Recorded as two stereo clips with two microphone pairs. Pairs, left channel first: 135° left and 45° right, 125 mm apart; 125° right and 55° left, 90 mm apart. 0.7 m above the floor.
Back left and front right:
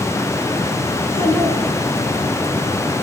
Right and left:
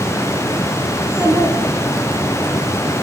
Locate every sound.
1.0 s a child speaking: 115° left, 6 m; by 2.2 s 110° left, 5 m